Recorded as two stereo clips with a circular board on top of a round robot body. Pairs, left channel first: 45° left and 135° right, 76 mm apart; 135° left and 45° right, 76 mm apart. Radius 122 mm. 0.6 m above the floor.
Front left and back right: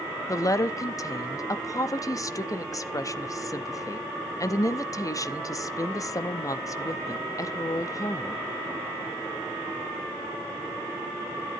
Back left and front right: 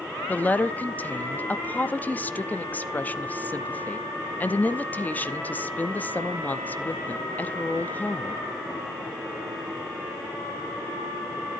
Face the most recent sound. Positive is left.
turn(degrees=75)